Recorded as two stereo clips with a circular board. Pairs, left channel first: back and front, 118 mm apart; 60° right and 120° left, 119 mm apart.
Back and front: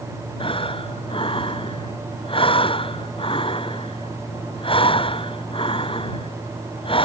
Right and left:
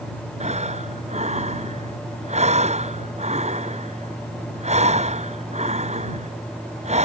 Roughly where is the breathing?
Behind left.